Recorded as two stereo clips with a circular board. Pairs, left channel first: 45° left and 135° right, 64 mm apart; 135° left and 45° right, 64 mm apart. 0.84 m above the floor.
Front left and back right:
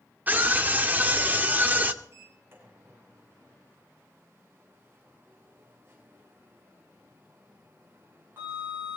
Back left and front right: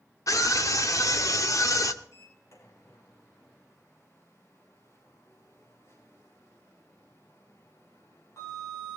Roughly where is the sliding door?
Behind.